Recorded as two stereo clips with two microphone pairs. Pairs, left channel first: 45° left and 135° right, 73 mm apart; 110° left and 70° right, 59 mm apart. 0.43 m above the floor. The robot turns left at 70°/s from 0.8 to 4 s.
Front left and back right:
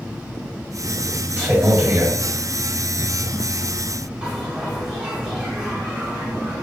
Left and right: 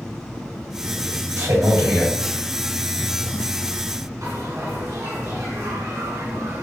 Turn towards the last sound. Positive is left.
turn(degrees=-55)